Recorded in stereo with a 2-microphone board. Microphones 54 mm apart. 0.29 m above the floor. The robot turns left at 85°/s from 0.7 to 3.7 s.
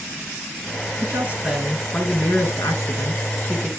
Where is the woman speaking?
115° right, 4 m; by 3.7 s 15° left, 4 m.